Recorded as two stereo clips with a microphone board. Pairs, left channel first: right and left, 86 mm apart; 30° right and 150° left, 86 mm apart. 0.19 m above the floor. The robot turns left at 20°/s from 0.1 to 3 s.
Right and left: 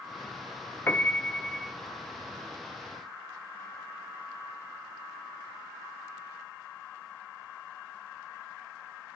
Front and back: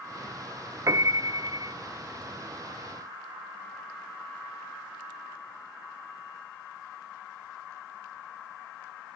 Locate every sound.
0.9 s a piano: 155° right, 0.5 m; by 1.7 s 175° right, 0.5 m